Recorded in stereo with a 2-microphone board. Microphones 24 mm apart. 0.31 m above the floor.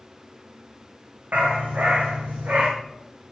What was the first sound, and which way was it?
A dog barking, 80° right.